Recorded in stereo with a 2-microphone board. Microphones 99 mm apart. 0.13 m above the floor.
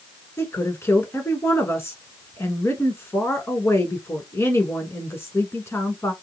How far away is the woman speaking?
About 1.2 m.